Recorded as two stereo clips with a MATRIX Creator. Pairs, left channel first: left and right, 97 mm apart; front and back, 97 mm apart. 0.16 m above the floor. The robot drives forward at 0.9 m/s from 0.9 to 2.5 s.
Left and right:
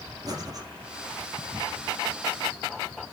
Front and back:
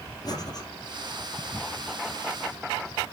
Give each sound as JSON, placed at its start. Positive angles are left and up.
{"t": 0.2, "sound": "breathing", "azimuth_deg": -45, "distance_m": 2.5}